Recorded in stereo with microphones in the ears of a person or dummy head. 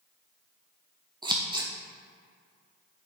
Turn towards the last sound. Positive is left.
turn(degrees=-25)  # may be behind; listen again after turning